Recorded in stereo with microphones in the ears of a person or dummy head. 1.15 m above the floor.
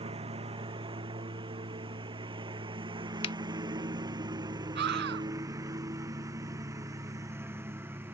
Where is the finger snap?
35° left (ahead or behind).